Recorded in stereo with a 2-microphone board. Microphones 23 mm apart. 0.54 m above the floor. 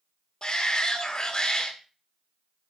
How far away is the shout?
About 1.9 m.